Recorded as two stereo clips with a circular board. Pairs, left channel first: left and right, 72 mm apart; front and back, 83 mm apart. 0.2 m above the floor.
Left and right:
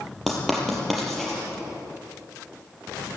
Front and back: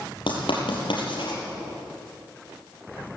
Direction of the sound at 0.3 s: Straight ahead.